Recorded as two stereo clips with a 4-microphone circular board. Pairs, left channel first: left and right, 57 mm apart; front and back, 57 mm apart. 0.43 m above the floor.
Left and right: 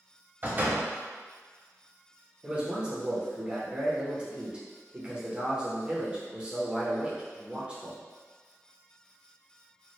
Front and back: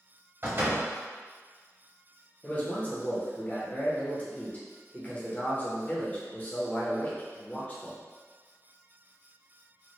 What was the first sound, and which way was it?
A door slam, 140° right.